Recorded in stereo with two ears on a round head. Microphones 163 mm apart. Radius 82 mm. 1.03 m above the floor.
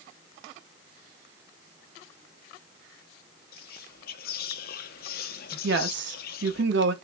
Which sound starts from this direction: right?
A woman speaking, at 5.6 s.